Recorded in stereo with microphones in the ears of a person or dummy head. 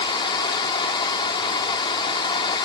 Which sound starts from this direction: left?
Running water, at 0.0 s.